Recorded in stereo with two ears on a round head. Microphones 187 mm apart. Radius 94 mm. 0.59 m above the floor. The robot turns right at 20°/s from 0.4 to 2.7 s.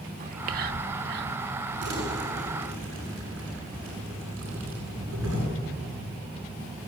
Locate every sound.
0.2 s whispering: 45° right (ahead or behind), 1.3 m; by 1.4 s 55° right (ahead or behind), 1.3 m
1.8 s crumpling: 55° right (ahead or behind), 8 m; by 5.4 s 75° right (ahead or behind), 8 m